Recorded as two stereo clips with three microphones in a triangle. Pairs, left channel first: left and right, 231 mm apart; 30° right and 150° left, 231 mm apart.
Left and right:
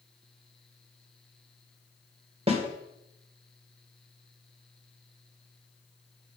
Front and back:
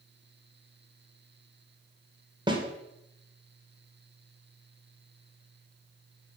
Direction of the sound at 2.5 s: 145° right.